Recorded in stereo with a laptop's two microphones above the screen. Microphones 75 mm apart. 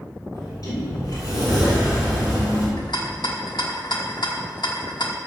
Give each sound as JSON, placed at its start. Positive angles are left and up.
{"t": 0.3, "sound": "a sliding door", "side_deg": 55, "distance_m": 3.5}
{"t": 2.8, "sound": "a rattle", "side_deg": 75, "distance_m": 1.3}